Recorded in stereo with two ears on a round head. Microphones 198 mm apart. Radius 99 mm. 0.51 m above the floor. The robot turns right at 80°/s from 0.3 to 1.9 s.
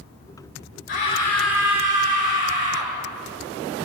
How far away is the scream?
About 9 m.